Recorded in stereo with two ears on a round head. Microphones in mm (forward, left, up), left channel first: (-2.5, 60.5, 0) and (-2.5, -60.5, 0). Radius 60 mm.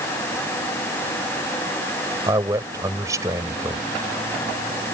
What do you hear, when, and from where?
2.3 s a man speaking: 25° right (ahead or behind)